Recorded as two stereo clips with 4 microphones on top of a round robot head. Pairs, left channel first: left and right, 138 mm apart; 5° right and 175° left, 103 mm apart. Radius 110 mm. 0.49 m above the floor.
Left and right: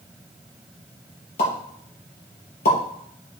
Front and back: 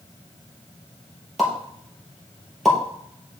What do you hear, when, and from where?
1.4 s a pop: 85° left, 3.5 m